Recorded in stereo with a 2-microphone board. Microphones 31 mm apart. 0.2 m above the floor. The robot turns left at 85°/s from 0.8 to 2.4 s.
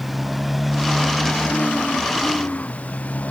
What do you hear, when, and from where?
0.0 s a motorcycle: 5° right (ahead or behind); by 3.3 s 50° left (ahead or behind)